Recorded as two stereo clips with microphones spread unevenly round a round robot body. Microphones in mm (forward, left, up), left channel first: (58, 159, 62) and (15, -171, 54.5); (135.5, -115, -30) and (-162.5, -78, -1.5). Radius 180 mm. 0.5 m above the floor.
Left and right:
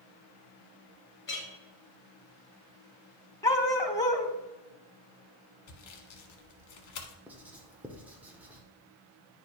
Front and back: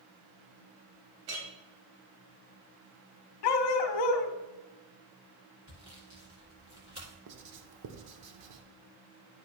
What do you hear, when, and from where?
1.3 s a clink: 145° left, 1.8 m
3.4 s a dog barking: straight ahead, 0.9 m
5.7 s sawing: 100° left, 1.1 m
7.3 s writing: straight behind, 0.9 m